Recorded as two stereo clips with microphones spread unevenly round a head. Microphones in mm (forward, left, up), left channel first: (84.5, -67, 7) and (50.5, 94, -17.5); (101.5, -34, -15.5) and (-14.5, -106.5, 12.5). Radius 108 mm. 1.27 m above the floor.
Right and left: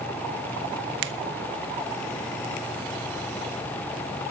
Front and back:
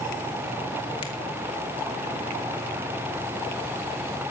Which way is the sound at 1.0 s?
100° left.